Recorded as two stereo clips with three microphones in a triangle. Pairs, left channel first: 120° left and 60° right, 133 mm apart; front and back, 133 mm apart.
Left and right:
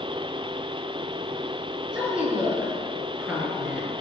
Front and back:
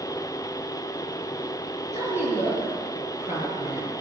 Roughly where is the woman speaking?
Ahead.